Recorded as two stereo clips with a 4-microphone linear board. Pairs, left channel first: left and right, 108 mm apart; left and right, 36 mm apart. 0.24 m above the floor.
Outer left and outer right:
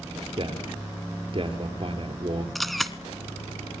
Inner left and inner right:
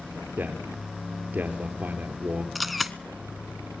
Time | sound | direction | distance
0.4 | a man speaking | 50° right (ahead or behind) | 4.5 m
2.5 | a camera shutter | centre (ahead or behind) | 1.1 m